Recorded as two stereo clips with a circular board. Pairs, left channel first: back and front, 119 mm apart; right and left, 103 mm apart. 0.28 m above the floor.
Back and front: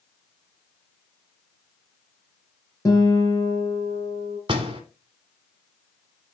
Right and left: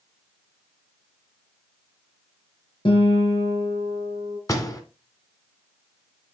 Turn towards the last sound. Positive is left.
turn(degrees=-40)